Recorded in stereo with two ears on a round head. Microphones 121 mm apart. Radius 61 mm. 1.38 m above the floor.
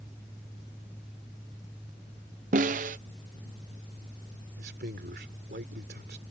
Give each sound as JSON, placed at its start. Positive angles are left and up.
{"t": 2.5, "sound": "a snare drum", "side_deg": -60}
{"t": 4.6, "sound": "a man speaking", "side_deg": -85}